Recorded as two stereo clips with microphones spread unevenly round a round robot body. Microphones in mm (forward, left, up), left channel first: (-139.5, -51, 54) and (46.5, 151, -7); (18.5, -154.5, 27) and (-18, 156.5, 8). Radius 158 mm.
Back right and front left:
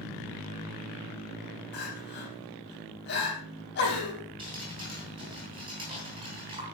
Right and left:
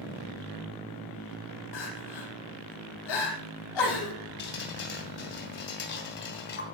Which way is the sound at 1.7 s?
75° right.